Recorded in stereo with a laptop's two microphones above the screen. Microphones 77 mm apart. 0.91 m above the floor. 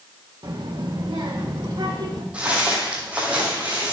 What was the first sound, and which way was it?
A child speaking, 70° right (ahead or behind).